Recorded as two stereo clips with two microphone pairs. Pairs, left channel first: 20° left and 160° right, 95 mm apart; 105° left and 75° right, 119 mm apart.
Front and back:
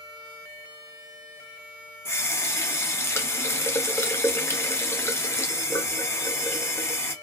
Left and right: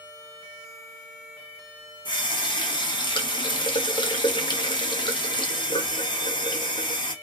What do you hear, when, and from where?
2.0 s a running tap: 70° left, 0.5 m